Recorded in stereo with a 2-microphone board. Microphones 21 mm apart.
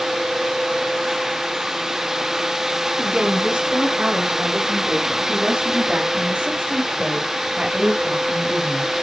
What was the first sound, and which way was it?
A woman speaking, 80° right.